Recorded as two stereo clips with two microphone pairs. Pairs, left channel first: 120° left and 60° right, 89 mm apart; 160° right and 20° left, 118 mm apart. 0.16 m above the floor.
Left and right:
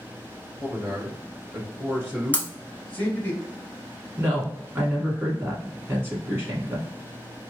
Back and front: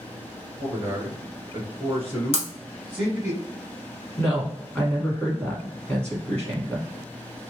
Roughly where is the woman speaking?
Right.